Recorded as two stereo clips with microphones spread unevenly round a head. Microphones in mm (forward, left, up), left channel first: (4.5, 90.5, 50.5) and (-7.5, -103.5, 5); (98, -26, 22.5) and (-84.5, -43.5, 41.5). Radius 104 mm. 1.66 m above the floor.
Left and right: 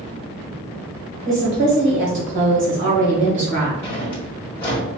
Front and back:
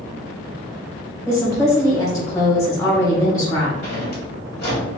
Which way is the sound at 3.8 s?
25° left.